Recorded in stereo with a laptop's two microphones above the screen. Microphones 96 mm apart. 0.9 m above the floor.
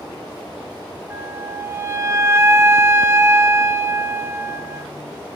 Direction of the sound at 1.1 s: 25° right (ahead or behind).